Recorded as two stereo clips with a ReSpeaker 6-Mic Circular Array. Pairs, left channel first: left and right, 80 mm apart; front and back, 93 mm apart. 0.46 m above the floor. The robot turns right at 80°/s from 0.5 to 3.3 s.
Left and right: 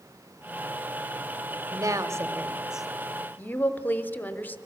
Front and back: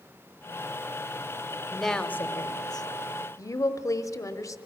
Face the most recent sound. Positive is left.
turn(degrees=35)